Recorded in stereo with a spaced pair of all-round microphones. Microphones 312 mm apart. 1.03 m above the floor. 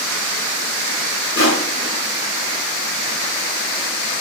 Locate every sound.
1.4 s crushing: 40° left (ahead or behind), 5 m